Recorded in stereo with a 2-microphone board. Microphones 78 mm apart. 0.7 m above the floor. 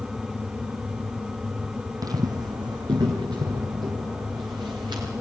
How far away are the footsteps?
About 1.1 m.